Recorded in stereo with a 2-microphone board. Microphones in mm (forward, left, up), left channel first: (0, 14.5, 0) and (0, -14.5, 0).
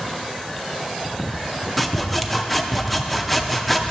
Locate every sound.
1.8 s sawing: centre (ahead or behind), 0.6 m